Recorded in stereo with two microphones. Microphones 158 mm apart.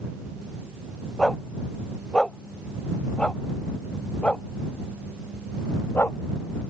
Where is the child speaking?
No child speaking in this recording.